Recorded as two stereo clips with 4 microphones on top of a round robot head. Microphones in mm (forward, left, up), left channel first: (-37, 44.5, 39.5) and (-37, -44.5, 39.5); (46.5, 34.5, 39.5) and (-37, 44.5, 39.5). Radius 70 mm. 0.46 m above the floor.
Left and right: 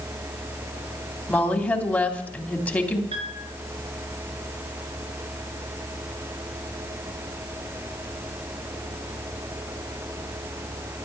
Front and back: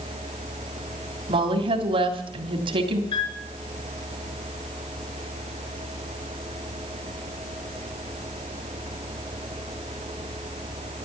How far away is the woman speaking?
About 3 m.